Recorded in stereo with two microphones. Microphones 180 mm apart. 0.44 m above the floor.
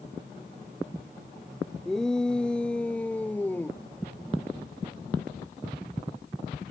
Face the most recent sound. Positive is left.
turn(degrees=10)  # may be behind; listen again after turning